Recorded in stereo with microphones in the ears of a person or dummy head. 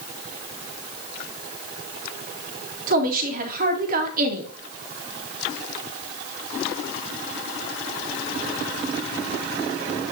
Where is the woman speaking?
55° right (ahead or behind), 2.5 m.